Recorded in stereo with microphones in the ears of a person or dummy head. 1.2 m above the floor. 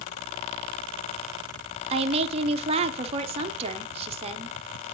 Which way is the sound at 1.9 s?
30° right (ahead or behind).